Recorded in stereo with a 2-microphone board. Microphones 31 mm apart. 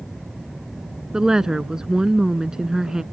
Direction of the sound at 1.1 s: 20° right (ahead or behind).